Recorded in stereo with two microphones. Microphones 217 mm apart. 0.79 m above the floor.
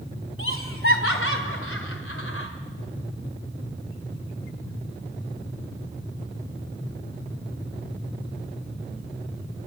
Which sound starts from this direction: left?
Laughter, at 0.4 s.